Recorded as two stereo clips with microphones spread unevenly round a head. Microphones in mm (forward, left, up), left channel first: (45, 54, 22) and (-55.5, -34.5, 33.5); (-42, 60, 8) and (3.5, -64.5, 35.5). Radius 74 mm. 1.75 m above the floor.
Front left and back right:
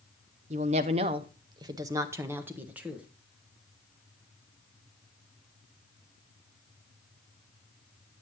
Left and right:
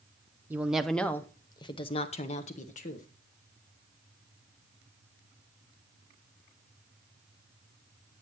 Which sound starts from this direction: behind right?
A woman speaking, at 0.5 s.